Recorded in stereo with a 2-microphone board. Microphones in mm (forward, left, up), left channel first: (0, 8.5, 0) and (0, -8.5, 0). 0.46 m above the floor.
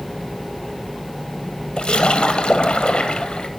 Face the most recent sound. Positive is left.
turn(degrees=60)  # may be behind; listen again after turning